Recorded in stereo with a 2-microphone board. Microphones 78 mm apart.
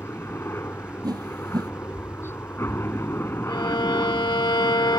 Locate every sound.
0.0 s a helicopter: 30° left (ahead or behind)
1.0 s a whoosh: 55° right (ahead or behind)
3.5 s a violin: 70° left (ahead or behind)